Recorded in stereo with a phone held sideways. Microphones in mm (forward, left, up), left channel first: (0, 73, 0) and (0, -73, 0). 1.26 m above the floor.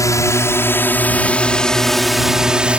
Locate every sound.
0.0 s a drone: 20° left (ahead or behind); by 2.8 s 10° right (ahead or behind)